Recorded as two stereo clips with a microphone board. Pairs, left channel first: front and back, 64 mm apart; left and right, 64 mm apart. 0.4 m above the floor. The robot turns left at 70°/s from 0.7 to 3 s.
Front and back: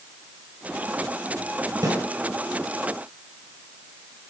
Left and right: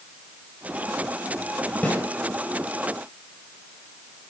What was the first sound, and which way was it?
A snare drum, 155° left.